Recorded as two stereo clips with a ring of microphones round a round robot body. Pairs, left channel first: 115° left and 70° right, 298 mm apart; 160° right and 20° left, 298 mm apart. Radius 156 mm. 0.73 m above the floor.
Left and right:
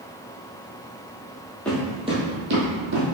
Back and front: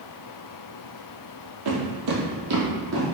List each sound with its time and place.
1.6 s footsteps: 25° left, 1.5 m; by 3.1 s 35° right, 2 m